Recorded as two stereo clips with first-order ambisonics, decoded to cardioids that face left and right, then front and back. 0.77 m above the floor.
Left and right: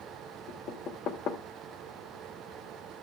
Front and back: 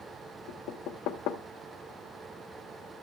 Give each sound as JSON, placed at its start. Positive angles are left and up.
{"t": 0.5, "sound": "knocking", "azimuth_deg": 40, "distance_m": 1.5}